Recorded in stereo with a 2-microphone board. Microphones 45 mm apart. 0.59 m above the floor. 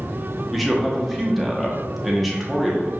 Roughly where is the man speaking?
Centre.